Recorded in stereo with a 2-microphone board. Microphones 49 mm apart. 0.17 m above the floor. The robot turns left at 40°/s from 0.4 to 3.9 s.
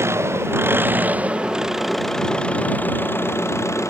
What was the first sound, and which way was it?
An engine running, 120° right.